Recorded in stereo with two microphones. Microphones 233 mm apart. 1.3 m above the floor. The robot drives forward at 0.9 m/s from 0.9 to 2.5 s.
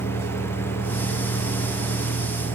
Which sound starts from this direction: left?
A vehicle, at 0.0 s.